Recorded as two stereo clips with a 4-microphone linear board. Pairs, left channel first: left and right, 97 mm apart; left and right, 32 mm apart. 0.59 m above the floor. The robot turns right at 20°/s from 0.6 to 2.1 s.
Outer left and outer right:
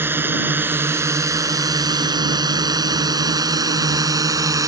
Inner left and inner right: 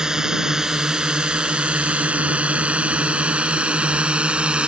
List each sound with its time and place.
0.0 s a drone: 20° right (ahead or behind); by 4.7 s 35° right (ahead or behind)